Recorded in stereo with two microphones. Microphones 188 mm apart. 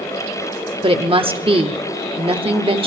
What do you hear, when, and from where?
0.8 s a woman speaking: 25° right (ahead or behind), 0.9 m